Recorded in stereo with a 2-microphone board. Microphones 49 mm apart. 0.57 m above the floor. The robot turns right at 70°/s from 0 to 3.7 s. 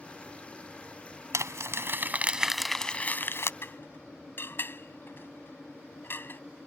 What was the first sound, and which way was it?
Crumpling, 90° right.